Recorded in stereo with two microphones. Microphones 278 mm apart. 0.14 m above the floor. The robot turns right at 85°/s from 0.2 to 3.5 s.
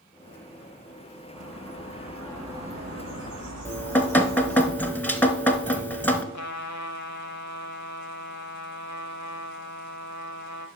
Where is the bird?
90° left, 3.5 m; by 4.7 s 90° right, 3.5 m.